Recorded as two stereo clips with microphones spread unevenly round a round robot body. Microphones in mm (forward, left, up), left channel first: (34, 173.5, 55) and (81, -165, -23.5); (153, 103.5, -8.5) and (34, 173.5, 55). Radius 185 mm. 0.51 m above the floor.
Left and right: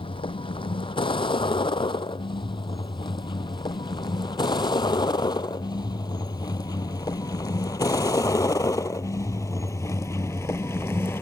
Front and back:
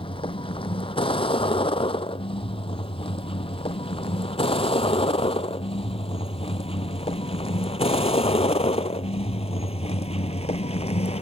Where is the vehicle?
20° left; by 11.2 s 15° left.